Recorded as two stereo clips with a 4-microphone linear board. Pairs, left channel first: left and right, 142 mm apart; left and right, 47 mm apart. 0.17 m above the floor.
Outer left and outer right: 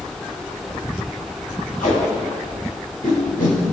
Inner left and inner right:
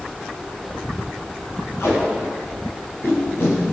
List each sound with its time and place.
1.8 s tape being pulled: 70° left (ahead or behind), 4.5 m